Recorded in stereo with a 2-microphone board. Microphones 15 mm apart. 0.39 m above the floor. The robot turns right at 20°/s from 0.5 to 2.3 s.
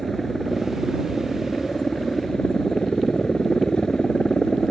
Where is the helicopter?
15° left; by 4.7 s 50° left.